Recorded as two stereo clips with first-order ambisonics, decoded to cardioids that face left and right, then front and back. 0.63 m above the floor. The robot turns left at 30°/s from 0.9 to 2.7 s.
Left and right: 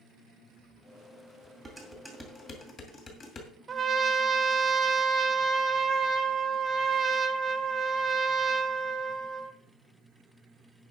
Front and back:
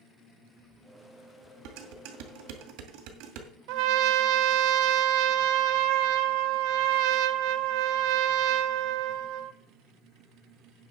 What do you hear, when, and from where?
1.6 s dishes clattering: 170° right, 2.5 m; by 3.5 s 155° left, 2.5 m
3.7 s a trumpet: 160° right, 0.8 m